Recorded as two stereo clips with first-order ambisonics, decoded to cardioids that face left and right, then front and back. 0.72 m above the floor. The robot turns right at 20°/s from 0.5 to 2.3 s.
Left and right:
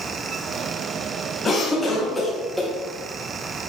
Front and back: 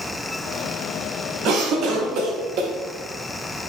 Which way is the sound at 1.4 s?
160° left.